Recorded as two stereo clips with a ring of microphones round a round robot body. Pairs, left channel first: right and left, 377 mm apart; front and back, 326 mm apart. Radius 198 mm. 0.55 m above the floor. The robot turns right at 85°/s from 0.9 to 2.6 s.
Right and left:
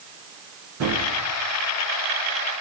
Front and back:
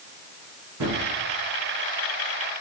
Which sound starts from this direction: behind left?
A gunshot, at 0.8 s.